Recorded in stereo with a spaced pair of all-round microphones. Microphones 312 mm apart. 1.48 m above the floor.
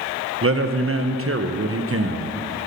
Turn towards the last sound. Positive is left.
turn(degrees=-45)  # may be behind; listen again after turning